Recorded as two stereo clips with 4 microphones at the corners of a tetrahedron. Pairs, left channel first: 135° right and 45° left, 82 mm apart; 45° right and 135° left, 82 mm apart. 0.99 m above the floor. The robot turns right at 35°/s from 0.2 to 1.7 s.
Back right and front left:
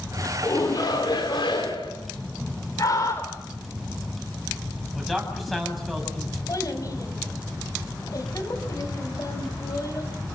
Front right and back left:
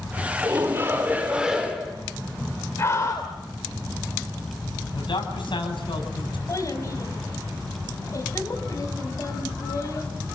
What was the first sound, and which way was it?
A shout, straight behind.